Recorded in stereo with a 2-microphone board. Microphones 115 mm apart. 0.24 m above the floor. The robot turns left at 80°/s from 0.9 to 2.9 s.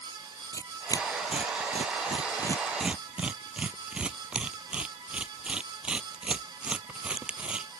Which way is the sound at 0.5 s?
30° left (ahead or behind).